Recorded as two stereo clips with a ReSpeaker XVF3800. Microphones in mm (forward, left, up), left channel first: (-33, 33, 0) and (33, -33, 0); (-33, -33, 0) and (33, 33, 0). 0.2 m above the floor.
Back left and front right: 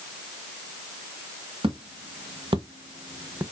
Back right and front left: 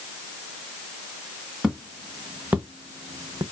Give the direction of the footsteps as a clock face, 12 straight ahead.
1 o'clock.